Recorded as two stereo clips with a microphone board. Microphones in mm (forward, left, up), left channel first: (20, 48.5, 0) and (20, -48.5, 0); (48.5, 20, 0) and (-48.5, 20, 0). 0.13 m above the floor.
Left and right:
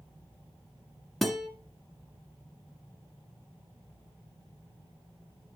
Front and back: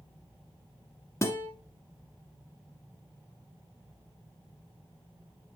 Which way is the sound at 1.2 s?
Straight ahead.